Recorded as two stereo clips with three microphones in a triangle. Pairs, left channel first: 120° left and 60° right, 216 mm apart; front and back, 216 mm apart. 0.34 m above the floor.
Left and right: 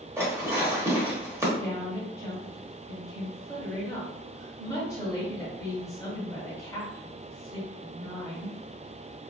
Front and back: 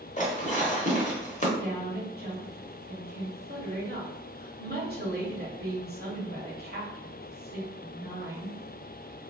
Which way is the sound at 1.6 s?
170° right.